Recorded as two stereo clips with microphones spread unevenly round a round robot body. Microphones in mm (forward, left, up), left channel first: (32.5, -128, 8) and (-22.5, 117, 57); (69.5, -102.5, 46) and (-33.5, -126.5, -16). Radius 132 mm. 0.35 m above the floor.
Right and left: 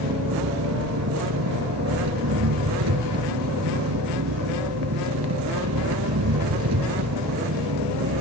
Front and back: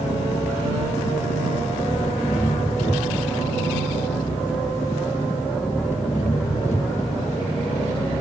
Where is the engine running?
80° left.